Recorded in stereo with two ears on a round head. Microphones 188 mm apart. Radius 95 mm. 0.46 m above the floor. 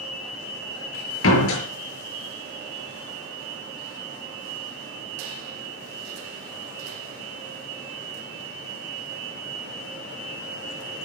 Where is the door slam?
65° left (ahead or behind), 6.5 m.